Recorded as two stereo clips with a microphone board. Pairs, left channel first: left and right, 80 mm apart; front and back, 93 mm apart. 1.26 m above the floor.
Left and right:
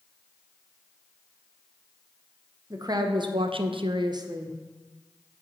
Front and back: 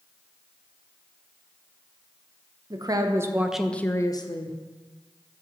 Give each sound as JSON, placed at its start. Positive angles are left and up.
{"t": 2.7, "sound": "a woman speaking", "azimuth_deg": -135, "distance_m": 0.8}